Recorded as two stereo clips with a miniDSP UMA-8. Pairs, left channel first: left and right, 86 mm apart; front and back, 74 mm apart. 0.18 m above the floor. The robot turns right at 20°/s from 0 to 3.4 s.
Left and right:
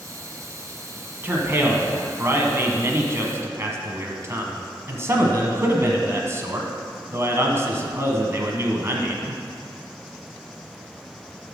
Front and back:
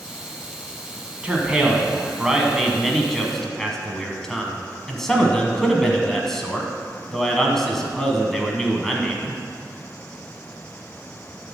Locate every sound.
1.2 s a man speaking: 125° right, 1.2 m; by 9.4 s 80° right, 1.2 m